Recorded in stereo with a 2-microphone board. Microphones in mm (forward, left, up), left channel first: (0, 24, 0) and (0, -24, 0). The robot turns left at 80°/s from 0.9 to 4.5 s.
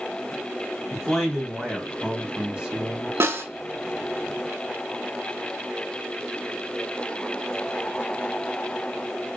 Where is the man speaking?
10° left (ahead or behind), 1.0 m; by 3.1 s 15° right (ahead or behind), 1.0 m.